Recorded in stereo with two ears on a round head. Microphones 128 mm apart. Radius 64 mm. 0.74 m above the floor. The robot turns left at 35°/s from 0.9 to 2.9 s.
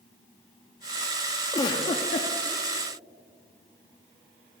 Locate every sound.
1.5 s a giggle: 25° left (ahead or behind), 0.7 m; by 2.3 s 50° left (ahead or behind), 0.7 m